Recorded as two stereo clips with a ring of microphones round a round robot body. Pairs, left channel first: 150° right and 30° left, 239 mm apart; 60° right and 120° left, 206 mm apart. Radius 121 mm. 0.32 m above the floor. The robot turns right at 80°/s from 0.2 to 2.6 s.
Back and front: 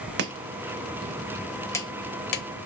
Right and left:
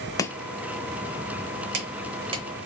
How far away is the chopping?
About 0.8 m.